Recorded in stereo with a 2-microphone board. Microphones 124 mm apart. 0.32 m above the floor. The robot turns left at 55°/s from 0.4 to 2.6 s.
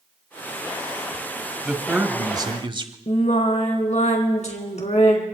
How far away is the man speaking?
About 1.4 m.